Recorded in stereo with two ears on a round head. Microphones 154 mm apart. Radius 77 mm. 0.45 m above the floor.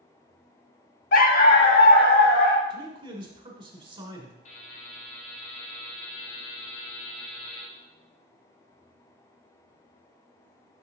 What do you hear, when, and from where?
1.1 s a dog barking: 50° left (ahead or behind), 0.6 m; by 2.6 s 65° left (ahead or behind), 1.7 m
2.7 s a man speaking: 30° right (ahead or behind), 1.2 m
4.5 s a buzzer: 45° left (ahead or behind), 3.5 m